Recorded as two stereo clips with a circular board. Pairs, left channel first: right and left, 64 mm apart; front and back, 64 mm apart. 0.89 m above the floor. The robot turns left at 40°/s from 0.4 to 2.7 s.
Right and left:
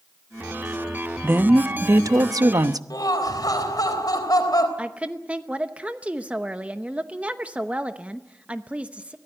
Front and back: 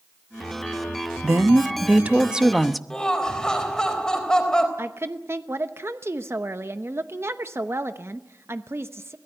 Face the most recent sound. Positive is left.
turn(degrees=155)